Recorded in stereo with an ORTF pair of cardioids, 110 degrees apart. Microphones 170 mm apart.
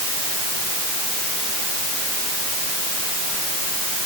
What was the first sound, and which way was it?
Only background noise.